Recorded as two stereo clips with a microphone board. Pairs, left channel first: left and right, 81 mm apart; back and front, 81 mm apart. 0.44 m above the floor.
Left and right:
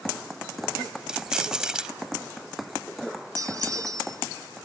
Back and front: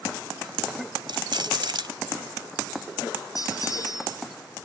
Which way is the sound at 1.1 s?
10° right.